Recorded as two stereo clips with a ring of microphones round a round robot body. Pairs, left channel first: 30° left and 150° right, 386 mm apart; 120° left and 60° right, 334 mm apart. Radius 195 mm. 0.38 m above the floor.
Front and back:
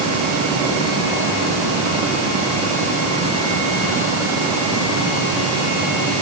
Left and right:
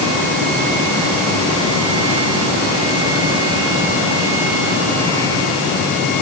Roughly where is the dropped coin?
No dropped coin in this recording.